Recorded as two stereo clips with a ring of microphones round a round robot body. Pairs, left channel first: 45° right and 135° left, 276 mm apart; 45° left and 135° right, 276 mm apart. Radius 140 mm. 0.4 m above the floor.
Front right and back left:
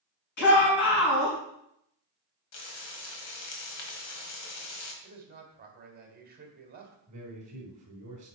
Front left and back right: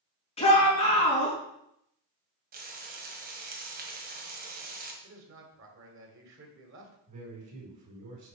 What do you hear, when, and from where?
0.4 s a shout: 25° right, 4.5 m
2.5 s frying: 80° right, 1.8 m
5.0 s a man speaking: 170° right, 2.5 m
7.1 s a man speaking: 160° right, 4 m